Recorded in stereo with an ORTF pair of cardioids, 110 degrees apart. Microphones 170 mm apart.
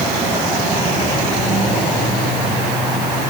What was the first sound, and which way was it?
Only background noise.